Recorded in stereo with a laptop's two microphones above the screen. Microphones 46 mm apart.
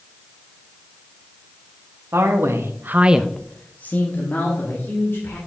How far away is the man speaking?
About 1.5 m.